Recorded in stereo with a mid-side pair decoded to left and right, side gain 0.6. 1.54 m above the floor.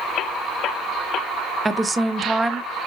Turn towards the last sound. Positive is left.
turn(degrees=-20)